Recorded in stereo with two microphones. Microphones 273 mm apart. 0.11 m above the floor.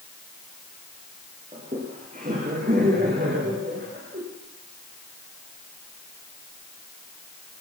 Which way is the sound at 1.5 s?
25° right (ahead or behind).